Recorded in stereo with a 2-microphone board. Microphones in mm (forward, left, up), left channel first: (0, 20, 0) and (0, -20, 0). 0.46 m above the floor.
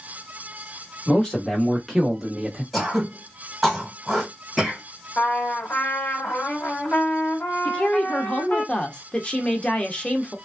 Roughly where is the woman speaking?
Left.